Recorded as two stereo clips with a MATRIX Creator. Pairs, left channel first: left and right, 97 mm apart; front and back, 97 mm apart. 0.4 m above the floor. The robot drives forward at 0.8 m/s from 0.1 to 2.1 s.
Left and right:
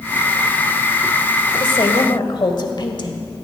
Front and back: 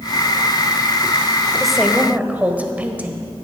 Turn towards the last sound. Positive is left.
turn(degrees=110)